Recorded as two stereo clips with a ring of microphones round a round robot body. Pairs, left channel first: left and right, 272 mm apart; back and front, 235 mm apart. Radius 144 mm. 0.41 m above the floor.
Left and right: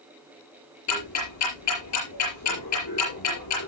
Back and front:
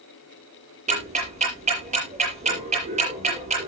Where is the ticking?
60° left, 7.5 m.